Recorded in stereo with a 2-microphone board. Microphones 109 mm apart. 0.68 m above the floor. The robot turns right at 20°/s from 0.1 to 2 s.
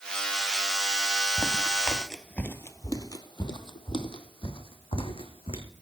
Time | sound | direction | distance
1.4 | footsteps | 20° right (ahead or behind) | 0.7 m